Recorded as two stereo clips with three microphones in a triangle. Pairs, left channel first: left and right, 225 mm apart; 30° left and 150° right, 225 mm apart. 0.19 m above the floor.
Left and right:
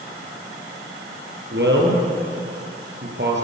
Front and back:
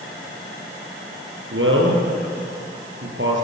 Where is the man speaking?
125° right, 4.5 m.